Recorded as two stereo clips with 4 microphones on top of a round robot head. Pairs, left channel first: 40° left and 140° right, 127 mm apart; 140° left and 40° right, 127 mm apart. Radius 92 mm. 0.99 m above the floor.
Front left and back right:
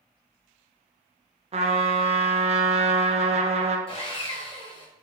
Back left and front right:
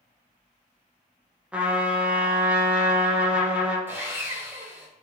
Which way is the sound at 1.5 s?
120° right.